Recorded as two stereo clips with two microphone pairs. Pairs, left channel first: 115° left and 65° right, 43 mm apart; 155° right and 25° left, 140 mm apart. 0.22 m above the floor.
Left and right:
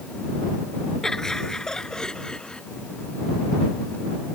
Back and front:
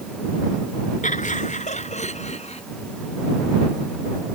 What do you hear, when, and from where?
1.0 s laughter: 170° right; by 2.6 s straight behind